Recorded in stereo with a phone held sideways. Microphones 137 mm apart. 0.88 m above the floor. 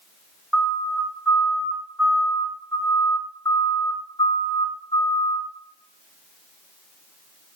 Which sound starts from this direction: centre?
A siren, at 0.5 s.